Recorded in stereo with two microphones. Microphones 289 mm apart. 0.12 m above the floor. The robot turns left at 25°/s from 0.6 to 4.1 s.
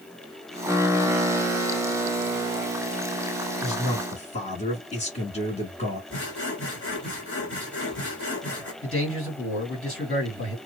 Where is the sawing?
45° left (ahead or behind), 2.0 m.